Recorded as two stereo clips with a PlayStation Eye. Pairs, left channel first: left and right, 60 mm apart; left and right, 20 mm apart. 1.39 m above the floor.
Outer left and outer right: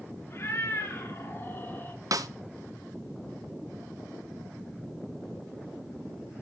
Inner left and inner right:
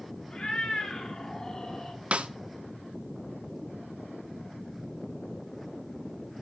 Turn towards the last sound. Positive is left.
turn(degrees=-75)  # may be behind; listen again after turning